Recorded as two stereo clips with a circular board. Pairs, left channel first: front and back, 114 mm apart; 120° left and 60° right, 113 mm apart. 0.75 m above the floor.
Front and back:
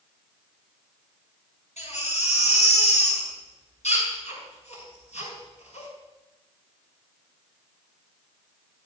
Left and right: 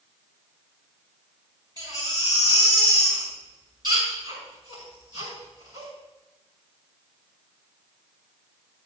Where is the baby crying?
10° right, 6 m.